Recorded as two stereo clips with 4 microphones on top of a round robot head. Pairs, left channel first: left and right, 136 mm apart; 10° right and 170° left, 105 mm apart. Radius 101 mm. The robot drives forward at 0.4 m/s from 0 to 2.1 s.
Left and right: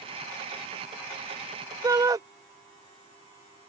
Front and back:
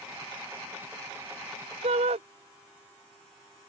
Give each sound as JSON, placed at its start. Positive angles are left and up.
{"t": 1.8, "sound": "a shout", "azimuth_deg": -155}